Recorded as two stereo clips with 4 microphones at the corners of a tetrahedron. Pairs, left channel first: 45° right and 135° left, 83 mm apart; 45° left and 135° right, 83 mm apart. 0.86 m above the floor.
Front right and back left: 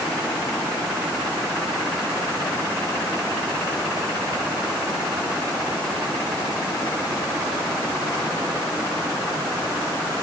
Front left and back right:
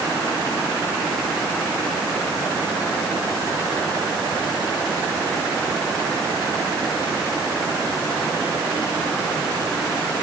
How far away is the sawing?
I don't hear sawing.